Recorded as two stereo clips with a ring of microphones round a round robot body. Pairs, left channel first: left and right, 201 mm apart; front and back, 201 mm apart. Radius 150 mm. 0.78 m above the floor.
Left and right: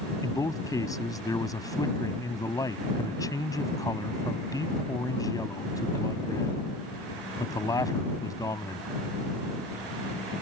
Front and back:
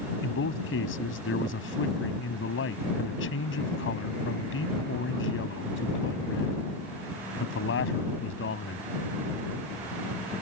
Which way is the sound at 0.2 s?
15° left.